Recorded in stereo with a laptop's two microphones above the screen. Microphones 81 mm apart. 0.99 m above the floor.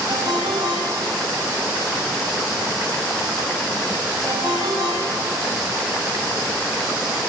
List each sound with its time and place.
0.1 s a ringtone: 60° right (ahead or behind), 5 m